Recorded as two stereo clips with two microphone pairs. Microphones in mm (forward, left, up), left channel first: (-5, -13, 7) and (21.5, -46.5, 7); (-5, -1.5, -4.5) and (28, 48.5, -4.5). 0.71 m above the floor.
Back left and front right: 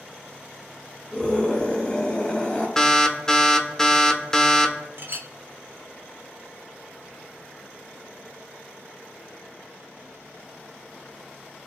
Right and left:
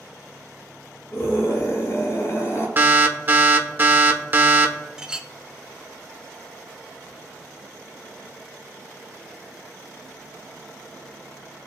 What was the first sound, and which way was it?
A scream, 165° right.